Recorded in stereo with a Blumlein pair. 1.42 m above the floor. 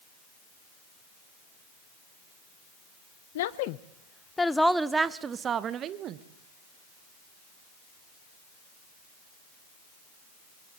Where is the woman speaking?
60° left, 0.7 m; by 6.2 s 35° right, 1.4 m.